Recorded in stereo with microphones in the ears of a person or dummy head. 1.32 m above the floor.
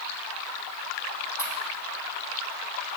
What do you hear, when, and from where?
1.4 s a pop: 15° right (ahead or behind), 3 m